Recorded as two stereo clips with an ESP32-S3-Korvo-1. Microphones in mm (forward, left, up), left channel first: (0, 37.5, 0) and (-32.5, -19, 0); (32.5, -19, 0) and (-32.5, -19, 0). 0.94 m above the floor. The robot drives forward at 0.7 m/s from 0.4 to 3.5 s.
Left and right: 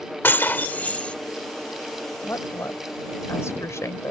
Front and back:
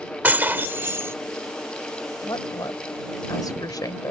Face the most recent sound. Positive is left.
turn(degrees=15)